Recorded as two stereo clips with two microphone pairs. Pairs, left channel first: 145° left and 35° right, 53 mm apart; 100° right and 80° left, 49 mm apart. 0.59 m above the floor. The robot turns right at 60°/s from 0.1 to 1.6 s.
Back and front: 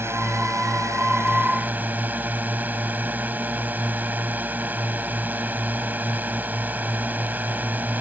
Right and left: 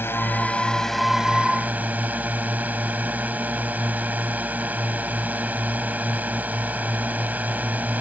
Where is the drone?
65° right; by 8.0 s 25° left.